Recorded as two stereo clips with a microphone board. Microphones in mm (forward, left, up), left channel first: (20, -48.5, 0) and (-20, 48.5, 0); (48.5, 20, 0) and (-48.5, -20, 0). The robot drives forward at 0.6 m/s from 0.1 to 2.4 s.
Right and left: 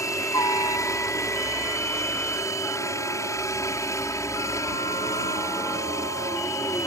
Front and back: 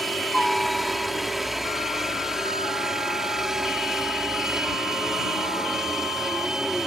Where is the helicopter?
65° right; by 6.9 s 75° right.